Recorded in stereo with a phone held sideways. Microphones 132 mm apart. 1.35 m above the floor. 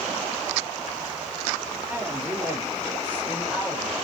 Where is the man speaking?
15° right (ahead or behind), 4 m; by 3.9 s 10° right (ahead or behind), 7 m.